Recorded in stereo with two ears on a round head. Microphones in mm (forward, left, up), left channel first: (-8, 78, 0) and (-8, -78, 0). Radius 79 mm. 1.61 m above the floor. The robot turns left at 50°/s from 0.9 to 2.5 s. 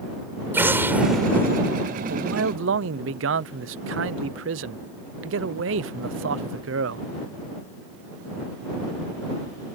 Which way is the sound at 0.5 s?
165° right.